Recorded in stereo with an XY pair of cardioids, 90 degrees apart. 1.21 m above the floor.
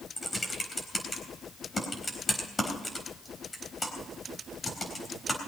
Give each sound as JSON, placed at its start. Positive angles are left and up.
{"t": 0.2, "sound": "typing on a keyboard", "azimuth_deg": 25, "distance_m": 4.0}